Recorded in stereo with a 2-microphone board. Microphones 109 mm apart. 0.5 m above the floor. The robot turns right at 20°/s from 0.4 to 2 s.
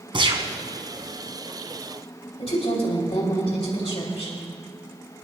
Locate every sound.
0.1 s a gunshot: 50° right (ahead or behind), 1.2 m; by 0.5 s 55° right (ahead or behind), 1.2 m
2.4 s a woman speaking: 60° left (ahead or behind), 2.5 m